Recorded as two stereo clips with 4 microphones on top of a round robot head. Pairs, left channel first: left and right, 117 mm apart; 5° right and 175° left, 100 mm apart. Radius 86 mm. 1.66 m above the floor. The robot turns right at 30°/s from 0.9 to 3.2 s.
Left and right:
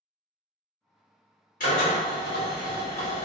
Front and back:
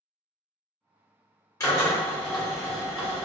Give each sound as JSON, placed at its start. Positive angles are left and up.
{"t": 1.6, "sound": "a drill", "azimuth_deg": 50, "distance_m": 1.1}